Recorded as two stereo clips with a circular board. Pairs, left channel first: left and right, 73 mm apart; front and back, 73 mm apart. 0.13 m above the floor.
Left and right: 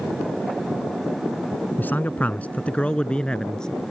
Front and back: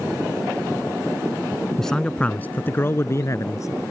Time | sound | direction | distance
1.8 | a man speaking | 80° left | ?